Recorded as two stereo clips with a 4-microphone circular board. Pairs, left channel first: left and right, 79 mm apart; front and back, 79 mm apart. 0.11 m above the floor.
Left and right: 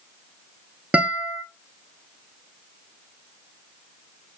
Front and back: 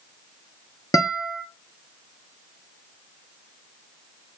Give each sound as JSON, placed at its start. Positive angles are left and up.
{"t": 0.9, "sound": "a guitar", "azimuth_deg": -25, "distance_m": 0.5}